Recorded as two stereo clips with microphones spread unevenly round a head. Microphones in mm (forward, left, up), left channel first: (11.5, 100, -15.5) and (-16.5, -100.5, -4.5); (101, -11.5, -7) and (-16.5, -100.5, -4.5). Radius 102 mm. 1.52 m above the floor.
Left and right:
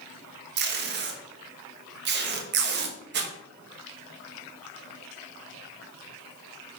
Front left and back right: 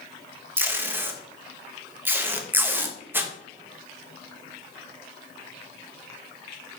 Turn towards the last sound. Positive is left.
turn(degrees=-70)